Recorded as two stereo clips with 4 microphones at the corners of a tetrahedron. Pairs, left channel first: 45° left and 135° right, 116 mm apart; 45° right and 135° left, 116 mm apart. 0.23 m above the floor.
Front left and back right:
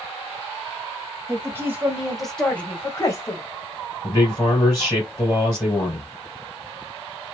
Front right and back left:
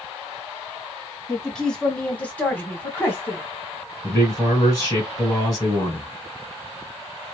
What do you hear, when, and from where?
1.3 s a woman speaking: 125° right, 1.2 m; by 3.4 s 15° left, 1.4 m
4.0 s a man speaking: 5° right, 1.9 m